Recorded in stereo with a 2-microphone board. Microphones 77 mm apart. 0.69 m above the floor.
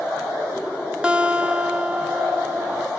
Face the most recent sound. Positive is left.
turn(degrees=-15)  # may be behind; listen again after turning